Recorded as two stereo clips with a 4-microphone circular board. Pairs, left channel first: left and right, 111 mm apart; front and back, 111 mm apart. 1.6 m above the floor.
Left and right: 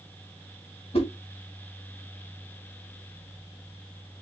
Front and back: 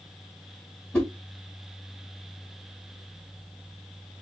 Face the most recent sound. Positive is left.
turn(degrees=80)